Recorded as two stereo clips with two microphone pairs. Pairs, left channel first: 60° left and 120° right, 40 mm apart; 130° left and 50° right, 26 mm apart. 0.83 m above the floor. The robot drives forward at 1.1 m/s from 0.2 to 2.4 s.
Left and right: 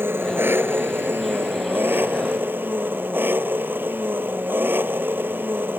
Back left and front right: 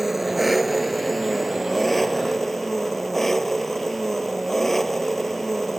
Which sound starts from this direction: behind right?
An engine running, at 0.0 s.